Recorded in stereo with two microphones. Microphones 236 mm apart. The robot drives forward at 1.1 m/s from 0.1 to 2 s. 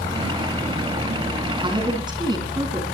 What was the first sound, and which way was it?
A woman speaking, 20° right (ahead or behind).